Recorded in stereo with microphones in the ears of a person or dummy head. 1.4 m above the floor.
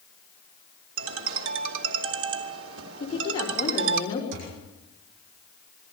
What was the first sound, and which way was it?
A ringtone, 85° right.